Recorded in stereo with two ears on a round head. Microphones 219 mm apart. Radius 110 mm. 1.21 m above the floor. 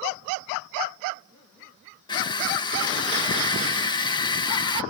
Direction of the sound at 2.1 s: 20° left (ahead or behind).